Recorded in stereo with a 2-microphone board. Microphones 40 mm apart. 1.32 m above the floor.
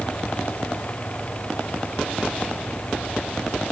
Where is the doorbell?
No doorbell in this recording.